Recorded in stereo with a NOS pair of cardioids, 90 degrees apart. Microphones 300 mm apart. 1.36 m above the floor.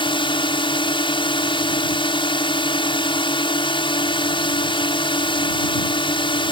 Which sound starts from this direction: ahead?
A drone, at 0.0 s.